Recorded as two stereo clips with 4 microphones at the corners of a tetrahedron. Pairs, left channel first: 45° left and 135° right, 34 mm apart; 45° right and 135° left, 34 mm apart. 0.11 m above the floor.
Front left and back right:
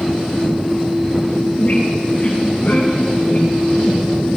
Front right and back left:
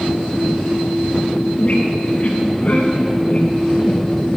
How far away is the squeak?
About 2.5 m.